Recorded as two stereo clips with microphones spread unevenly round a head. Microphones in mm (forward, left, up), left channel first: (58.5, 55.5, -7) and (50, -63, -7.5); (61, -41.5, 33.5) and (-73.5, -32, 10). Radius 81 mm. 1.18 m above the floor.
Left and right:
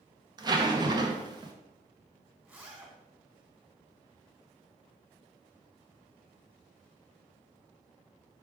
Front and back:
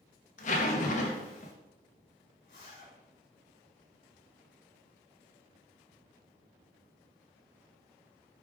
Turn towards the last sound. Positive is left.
turn(degrees=-20)